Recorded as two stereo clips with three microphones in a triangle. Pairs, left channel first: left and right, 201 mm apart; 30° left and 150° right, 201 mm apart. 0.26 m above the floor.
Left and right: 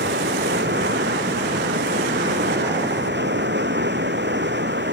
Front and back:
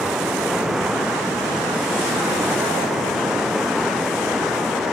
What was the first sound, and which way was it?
Running water, 60° right.